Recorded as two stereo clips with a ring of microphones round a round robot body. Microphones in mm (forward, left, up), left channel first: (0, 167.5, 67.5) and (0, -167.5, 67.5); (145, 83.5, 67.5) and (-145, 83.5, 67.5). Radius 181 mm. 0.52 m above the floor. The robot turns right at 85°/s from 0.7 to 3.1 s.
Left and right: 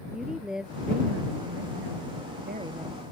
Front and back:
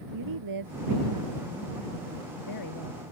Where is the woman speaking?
Straight behind; by 3.0 s 15° left.